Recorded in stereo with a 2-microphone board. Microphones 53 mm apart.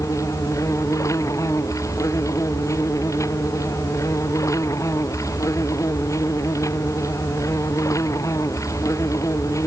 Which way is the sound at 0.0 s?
85° left.